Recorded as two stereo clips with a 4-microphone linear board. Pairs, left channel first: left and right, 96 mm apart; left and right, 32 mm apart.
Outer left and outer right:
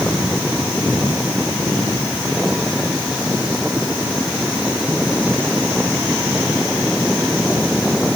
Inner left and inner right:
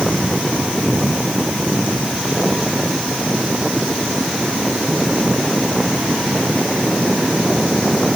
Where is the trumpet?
No trumpet in this recording.